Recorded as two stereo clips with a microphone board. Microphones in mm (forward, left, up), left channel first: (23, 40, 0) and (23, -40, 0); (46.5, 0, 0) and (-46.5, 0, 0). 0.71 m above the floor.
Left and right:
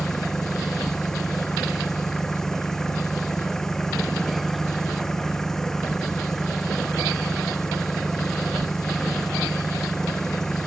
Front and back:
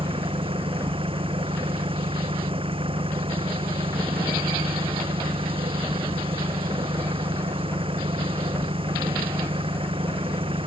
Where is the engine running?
175° left.